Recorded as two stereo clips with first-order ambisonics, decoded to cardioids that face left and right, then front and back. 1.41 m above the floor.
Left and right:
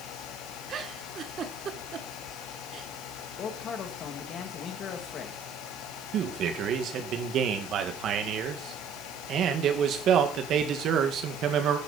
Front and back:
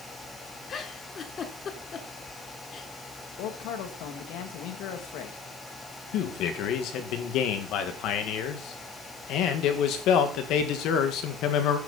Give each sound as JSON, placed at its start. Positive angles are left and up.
{"t": 0.7, "sound": "a giggle", "azimuth_deg": -50, "distance_m": 1.3}
{"t": 3.4, "sound": "a man speaking", "azimuth_deg": 30, "distance_m": 2.0}
{"t": 6.1, "sound": "a man speaking", "azimuth_deg": -40, "distance_m": 1.9}